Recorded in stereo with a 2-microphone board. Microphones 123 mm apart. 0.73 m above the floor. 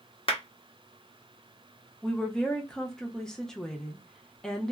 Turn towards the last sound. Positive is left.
turn(degrees=5)  # may be behind; listen again after turning